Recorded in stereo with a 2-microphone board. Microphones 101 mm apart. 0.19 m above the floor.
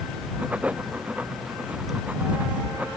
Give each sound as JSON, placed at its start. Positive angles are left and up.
{"t": 0.4, "sound": "writing", "side_deg": -15}